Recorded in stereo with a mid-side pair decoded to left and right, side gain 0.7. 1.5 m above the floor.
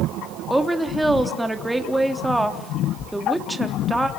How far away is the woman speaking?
About 3.5 m.